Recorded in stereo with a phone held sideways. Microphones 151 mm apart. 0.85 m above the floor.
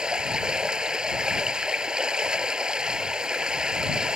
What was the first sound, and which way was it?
Running water, 5° right (ahead or behind).